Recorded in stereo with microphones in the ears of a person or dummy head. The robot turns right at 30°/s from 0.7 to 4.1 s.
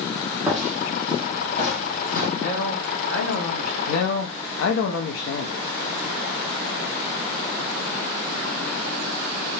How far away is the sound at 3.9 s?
About 0.6 m.